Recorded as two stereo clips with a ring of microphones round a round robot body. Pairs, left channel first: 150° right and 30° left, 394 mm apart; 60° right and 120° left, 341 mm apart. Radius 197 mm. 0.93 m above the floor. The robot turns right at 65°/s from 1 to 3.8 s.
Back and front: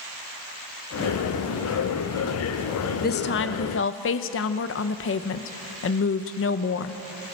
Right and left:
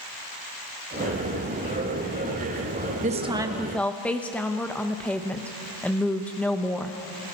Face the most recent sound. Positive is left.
turn(degrees=-145)